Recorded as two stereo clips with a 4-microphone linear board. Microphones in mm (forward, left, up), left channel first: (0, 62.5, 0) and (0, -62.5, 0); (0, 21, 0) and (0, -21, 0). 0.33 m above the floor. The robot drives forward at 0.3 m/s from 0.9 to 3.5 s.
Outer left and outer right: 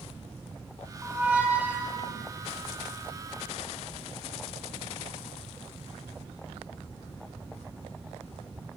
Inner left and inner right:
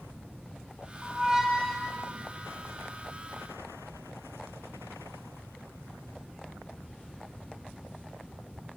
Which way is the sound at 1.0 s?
15° right (ahead or behind).